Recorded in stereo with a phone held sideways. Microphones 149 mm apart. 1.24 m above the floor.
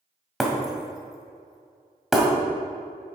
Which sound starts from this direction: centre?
Breaking glass, at 0.4 s.